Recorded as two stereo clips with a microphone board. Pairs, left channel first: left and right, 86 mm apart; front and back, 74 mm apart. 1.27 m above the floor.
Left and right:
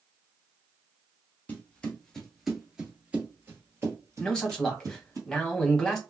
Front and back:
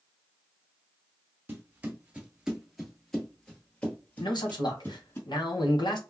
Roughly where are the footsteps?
Behind left.